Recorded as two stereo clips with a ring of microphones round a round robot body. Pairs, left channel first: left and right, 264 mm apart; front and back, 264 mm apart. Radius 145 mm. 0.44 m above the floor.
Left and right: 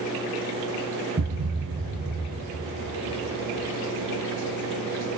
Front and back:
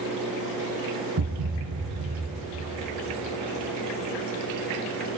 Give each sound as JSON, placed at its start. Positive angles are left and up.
{"t": 1.2, "sound": "a thud", "azimuth_deg": -150, "distance_m": 2.5}